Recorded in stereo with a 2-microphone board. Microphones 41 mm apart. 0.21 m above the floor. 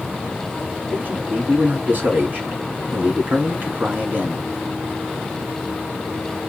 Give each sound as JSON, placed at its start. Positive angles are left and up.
{"t": 0.9, "sound": "a man speaking", "side_deg": -50, "distance_m": 2.5}